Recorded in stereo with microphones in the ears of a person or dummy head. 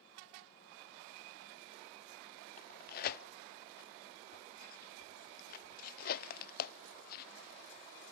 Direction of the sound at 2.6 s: 50° left (ahead or behind).